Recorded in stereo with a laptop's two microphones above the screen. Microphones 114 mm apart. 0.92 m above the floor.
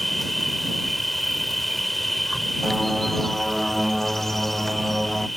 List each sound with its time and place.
0.0 s an insect: centre (ahead or behind)
2.6 s a bird: centre (ahead or behind)